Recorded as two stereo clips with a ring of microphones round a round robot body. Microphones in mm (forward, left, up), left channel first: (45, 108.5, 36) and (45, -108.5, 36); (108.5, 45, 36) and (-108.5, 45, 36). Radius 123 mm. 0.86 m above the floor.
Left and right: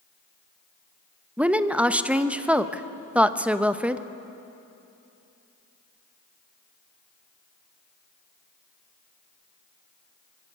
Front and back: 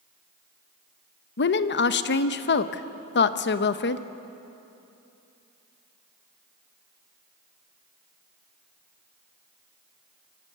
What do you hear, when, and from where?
1.4 s a woman speaking: 5° right, 0.8 m